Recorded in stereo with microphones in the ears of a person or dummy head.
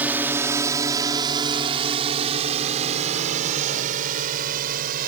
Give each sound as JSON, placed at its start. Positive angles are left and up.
{"t": 0.0, "sound": "a drone", "side_deg": -10}